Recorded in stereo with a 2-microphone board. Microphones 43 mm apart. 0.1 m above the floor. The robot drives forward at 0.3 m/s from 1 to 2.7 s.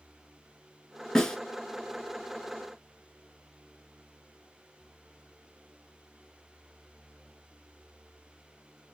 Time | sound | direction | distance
1.1 | a snare drum | 15° left (ahead or behind) | 0.5 m